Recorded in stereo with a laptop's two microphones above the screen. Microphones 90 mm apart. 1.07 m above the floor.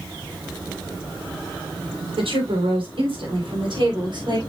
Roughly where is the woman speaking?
Right.